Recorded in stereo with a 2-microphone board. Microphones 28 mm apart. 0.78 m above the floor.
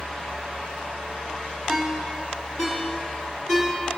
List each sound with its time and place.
1.7 s a ringtone: 10° left (ahead or behind), 3.5 m